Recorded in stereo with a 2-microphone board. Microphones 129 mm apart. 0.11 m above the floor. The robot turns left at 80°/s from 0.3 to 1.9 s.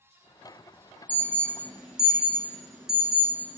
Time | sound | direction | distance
1.1 | an alarm | 15° left (ahead or behind) | 0.8 m